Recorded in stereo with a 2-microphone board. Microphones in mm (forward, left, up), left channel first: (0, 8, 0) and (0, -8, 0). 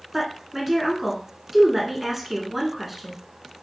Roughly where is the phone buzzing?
I don't hear a phone buzzing.